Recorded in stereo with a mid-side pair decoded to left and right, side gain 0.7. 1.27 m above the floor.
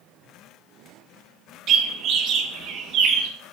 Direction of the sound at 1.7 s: 50° right.